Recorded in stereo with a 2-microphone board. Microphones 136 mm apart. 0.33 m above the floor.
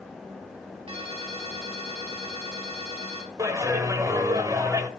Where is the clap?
25° right (ahead or behind), 1.2 m.